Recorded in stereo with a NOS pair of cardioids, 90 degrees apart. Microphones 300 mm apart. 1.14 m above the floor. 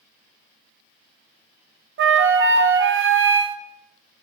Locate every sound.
2.0 s a flute: 50° right, 0.6 m